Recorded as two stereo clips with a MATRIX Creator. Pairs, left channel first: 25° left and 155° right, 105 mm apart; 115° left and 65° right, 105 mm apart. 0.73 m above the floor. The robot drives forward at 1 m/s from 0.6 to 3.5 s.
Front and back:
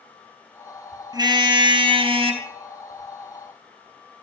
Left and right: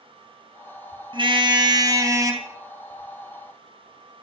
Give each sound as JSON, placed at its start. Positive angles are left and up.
{"t": 1.1, "sound": "a car horn", "azimuth_deg": -105, "distance_m": 2.5}